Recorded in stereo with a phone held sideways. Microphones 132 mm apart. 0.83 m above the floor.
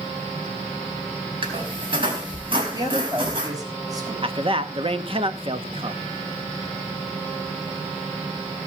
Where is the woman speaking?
35° right (ahead or behind), 4.5 m.